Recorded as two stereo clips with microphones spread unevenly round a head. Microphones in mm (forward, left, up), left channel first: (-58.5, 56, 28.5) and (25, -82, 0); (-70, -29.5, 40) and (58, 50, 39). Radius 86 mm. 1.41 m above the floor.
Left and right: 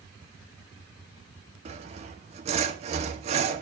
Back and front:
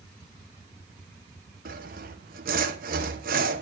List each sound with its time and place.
1.6 s sawing: straight ahead, 1.0 m